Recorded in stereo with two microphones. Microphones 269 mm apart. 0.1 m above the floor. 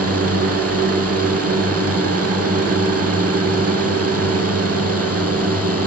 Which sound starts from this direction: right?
A drone, at 0.0 s.